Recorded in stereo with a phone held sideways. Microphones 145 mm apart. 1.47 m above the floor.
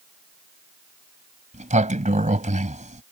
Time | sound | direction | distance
1.5 | a sliding door | 60° right (ahead or behind) | ?